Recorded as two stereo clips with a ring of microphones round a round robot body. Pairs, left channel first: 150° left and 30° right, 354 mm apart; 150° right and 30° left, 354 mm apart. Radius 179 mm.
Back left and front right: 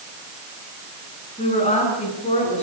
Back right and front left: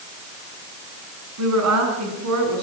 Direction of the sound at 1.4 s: 75° left.